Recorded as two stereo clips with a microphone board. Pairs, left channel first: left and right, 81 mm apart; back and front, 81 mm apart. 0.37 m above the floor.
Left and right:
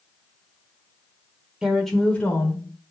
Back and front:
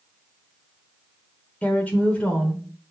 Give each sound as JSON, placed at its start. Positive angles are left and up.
{"t": 1.6, "sound": "a woman speaking", "azimuth_deg": -150, "distance_m": 0.9}